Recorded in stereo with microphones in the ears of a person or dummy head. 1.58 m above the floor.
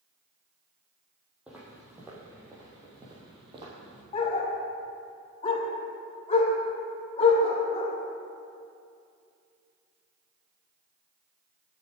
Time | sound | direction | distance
1.5 | footsteps | 5° right (ahead or behind) | 3 m
4.1 | a dog barking | 35° left (ahead or behind) | 1.9 m